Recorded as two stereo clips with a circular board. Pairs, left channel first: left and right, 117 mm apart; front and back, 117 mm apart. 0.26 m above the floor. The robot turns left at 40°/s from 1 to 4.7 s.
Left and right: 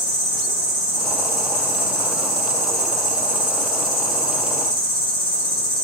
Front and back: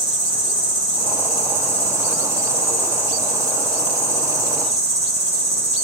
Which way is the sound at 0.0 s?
175° right.